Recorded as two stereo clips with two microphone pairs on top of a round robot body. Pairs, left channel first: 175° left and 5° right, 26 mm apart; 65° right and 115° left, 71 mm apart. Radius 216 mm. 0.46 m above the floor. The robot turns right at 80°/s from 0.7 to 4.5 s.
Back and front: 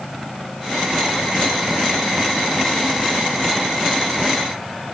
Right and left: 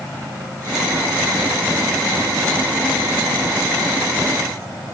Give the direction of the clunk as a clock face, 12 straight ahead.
I don't hear a clunk.